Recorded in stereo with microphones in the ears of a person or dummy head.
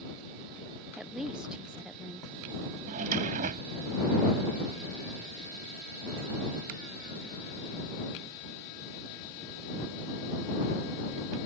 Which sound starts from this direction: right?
A drawer, at 2.9 s.